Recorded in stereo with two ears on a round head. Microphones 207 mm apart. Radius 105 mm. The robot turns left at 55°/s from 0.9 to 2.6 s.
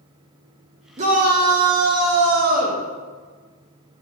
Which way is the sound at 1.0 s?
35° right.